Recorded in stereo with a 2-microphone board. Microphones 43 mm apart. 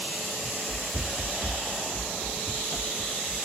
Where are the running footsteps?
30° right (ahead or behind), 2.5 m; by 3.5 s 25° left (ahead or behind), 1.5 m.